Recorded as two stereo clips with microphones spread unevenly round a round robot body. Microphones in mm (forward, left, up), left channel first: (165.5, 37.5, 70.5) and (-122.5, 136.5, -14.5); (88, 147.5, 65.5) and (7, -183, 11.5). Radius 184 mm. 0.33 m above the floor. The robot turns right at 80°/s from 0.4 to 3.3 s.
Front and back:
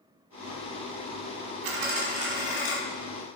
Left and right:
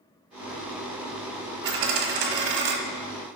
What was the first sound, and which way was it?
A dropped coin, 165° right.